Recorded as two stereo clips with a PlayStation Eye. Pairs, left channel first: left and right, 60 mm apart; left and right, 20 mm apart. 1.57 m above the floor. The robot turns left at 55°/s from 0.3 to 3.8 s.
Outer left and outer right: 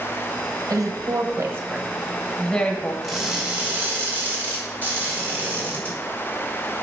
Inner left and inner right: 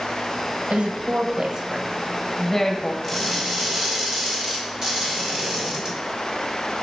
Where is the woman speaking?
75° right (ahead or behind), 1.2 m; by 2.9 s 30° left (ahead or behind), 1.2 m.